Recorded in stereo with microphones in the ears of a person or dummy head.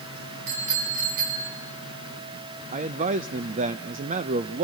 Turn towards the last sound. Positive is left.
turn(degrees=-35)  # may be behind; listen again after turning